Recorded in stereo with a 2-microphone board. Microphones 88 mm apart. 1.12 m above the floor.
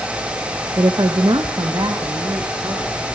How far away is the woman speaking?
About 0.6 m.